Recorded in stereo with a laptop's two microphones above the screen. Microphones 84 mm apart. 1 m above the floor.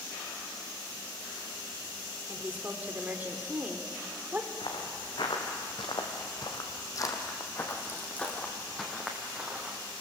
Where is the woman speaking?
20° right (ahead or behind), 3.5 m.